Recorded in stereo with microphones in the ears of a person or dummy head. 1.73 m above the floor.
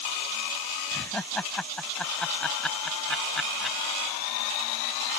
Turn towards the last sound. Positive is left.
turn(degrees=0)  # may be behind; listen again after turning